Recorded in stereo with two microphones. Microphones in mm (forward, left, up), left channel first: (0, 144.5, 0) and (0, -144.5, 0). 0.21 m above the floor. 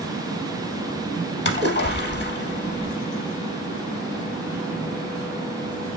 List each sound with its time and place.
1.4 s a splash: 35° left (ahead or behind), 0.7 m